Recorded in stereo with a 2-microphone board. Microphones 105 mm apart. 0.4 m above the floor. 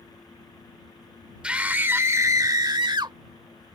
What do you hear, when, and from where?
1.4 s a scream: 10° right (ahead or behind); by 3.2 s 45° right (ahead or behind)